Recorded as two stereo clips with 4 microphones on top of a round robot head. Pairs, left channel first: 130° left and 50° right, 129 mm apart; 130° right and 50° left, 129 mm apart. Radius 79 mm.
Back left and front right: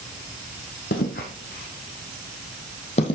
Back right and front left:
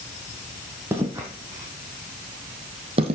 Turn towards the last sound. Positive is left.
turn(degrees=85)